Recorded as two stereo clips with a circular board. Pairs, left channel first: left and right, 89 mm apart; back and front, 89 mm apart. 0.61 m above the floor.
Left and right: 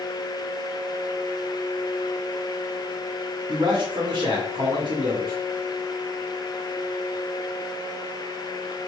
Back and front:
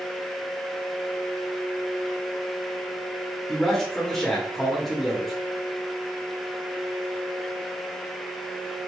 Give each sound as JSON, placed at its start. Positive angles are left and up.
{"t": 3.5, "sound": "a man speaking", "azimuth_deg": -90, "distance_m": 1.0}